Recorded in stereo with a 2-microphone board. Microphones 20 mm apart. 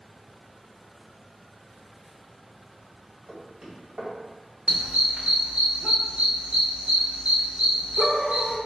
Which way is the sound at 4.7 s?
90° right.